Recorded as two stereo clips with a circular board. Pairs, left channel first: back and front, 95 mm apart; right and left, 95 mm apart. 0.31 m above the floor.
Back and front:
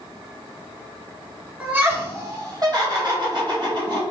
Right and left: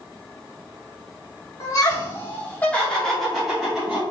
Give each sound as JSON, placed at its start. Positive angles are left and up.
{"t": 1.6, "sound": "laughter", "azimuth_deg": -65, "distance_m": 1.7}